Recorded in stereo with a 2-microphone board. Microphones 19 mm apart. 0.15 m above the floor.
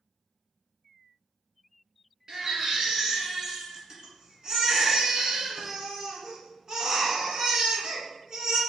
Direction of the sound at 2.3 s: 35° right (ahead or behind).